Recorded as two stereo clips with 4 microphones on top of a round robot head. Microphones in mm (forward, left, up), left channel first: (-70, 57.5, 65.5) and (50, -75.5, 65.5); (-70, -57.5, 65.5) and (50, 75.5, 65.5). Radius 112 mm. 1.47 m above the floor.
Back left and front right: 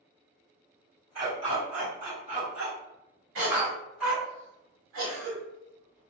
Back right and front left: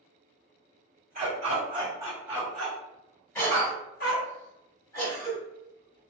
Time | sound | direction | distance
1.1 | a dog barking | 10° left | 1.4 m
3.4 | a cough | 55° right | 1.5 m